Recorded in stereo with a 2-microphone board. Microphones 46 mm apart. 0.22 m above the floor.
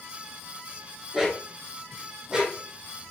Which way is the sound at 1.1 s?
5° right (ahead or behind).